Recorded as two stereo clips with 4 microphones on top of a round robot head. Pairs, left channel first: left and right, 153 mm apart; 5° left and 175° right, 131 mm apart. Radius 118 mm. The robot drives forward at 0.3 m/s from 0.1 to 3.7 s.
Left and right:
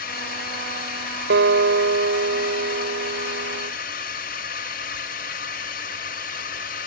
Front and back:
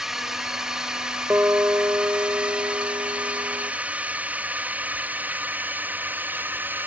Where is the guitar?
90° right; by 3.7 s 105° right.